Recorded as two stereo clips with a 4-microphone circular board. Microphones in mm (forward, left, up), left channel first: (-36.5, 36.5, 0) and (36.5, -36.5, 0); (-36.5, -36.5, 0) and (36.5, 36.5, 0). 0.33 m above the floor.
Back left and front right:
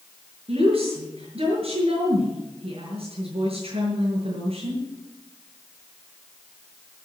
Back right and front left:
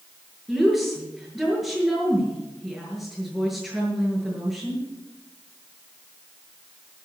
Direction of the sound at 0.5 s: 35° right.